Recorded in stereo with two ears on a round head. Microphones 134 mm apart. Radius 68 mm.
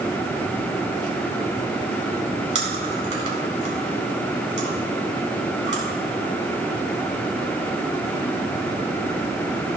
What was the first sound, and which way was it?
Chewing, 55° right (ahead or behind).